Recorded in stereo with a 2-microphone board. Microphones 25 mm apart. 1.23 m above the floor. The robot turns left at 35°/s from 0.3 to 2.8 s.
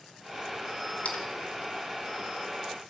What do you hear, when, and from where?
1.0 s a splash: 80° left, 1.9 m; by 1.2 s 85° left, 1.9 m